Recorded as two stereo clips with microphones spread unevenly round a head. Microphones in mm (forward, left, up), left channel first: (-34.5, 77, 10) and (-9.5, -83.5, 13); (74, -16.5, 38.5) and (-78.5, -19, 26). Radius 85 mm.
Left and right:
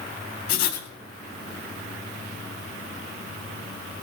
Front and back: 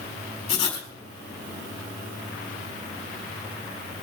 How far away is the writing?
About 4 m.